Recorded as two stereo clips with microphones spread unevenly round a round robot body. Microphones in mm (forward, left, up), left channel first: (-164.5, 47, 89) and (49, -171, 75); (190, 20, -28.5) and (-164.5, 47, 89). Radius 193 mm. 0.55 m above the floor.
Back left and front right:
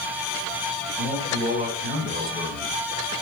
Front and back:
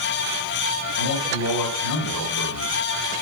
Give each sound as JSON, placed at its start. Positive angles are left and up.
{"t": 1.0, "sound": "a man speaking", "azimuth_deg": 20, "distance_m": 3.0}